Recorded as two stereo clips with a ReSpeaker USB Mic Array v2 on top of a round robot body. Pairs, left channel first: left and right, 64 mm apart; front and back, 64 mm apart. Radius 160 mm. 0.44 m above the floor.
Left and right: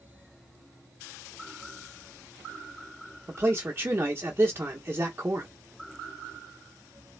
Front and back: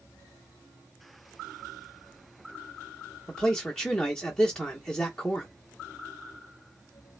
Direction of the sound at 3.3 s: 75° right.